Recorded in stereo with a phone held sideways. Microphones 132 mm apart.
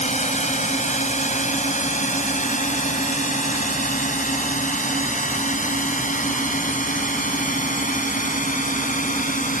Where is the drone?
60° left (ahead or behind); by 9.6 s 80° left.